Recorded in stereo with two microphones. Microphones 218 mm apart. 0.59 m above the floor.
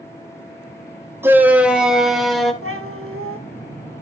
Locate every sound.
1.2 s a shout: 10° right (ahead or behind), 2 m; by 2.5 s centre (ahead or behind), 3.5 m
2.6 s a cat meowing: 75° right (ahead or behind), 2 m